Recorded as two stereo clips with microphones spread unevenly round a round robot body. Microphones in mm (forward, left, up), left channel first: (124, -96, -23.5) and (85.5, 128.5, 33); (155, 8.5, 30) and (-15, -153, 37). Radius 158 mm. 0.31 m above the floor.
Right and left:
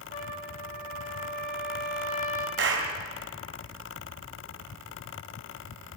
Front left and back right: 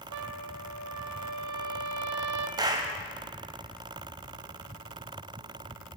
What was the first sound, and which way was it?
A trumpet, 150° right.